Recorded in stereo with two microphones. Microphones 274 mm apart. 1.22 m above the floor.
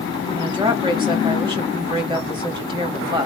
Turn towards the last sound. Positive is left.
turn(degrees=-15)  # may be behind; listen again after turning